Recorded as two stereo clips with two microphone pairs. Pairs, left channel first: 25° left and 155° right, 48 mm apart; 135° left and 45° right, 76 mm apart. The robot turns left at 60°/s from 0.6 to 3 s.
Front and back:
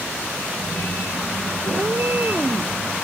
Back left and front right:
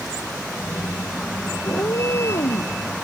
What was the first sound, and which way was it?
A cat meowing, 175° right.